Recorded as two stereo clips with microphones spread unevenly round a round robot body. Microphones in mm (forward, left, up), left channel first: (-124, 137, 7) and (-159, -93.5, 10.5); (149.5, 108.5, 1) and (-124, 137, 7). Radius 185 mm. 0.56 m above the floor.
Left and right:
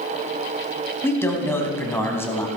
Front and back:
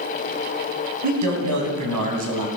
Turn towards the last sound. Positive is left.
turn(degrees=160)